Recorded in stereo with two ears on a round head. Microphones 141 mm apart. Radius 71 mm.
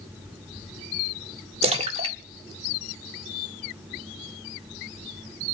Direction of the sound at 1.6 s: 40° right (ahead or behind).